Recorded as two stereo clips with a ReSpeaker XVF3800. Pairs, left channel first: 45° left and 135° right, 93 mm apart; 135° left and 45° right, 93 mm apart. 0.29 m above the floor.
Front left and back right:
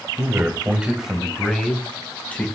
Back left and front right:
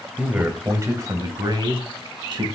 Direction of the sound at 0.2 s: 115° right.